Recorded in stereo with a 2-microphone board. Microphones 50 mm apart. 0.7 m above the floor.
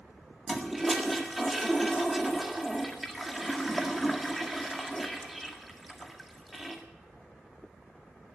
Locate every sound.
0.5 s a toilet flushing: 5° right (ahead or behind), 1.8 m